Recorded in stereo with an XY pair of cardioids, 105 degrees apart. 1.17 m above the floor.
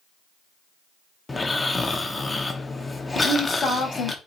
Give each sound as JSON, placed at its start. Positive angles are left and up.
{"t": 1.3, "sound": "snoring", "azimuth_deg": 20, "distance_m": 0.6}
{"t": 3.1, "sound": "a woman speaking", "azimuth_deg": 50, "distance_m": 1.2}